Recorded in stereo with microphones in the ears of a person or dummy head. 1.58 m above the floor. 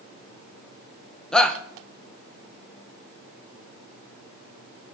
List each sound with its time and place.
1.3 s a shout: 5° left (ahead or behind), 0.9 m